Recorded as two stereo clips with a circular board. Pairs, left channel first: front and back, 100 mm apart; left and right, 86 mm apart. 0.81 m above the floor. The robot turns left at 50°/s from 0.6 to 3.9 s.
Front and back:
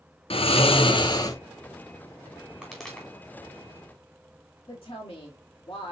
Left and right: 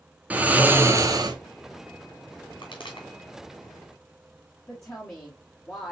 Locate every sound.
0.3 s snoring: 15° right, 0.8 m; by 1.4 s 55° right, 0.8 m
2.6 s a pop: 100° left, 2.5 m; by 3.1 s 80° left, 2.5 m
4.7 s a woman speaking: 35° left, 1.7 m